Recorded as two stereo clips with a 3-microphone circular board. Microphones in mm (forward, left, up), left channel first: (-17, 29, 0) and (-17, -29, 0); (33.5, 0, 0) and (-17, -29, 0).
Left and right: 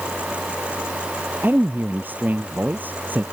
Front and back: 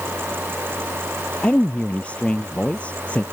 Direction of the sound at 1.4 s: 35° right.